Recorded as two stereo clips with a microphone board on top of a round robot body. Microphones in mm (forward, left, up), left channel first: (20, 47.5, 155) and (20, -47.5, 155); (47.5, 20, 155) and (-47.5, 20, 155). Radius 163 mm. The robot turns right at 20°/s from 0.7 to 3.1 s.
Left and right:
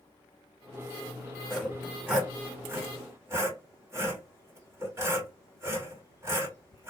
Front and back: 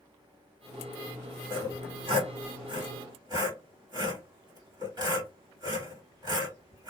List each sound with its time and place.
1.5 s sawing: straight behind, 2.0 m; by 6.9 s 145° right, 2.0 m